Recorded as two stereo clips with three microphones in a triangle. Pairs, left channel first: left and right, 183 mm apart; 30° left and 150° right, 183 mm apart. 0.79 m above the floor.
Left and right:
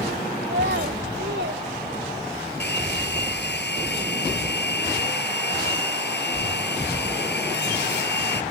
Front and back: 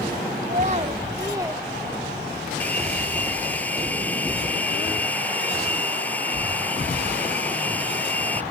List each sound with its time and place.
0.4 s a child speaking: 105° right; by 1.6 s 70° right
2.6 s a hair dryer: 110° left